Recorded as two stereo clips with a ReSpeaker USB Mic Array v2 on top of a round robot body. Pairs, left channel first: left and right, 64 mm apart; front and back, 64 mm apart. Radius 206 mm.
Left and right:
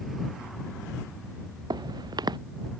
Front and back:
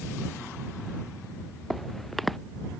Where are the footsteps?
90° right.